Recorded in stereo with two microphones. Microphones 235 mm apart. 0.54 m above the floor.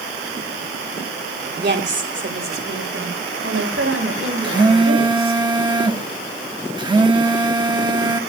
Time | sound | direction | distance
1.6 | a woman speaking | 45° right (ahead or behind) | 2.5 m
4.4 | a phone buzzing | 20° right (ahead or behind) | 1.2 m